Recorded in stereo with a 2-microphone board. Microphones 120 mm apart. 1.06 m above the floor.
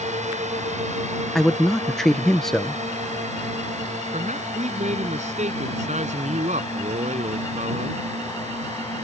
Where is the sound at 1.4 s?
5° left (ahead or behind).